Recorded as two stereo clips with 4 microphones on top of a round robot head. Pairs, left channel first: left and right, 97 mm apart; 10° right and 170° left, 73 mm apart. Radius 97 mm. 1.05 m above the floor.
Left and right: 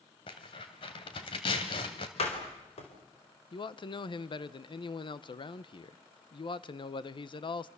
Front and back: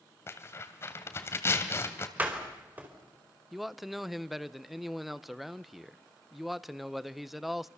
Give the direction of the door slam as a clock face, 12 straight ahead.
9 o'clock.